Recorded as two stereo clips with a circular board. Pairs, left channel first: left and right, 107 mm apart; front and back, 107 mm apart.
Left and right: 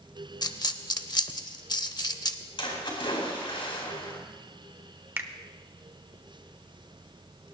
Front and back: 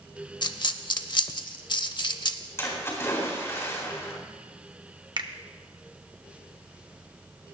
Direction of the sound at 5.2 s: 155° right.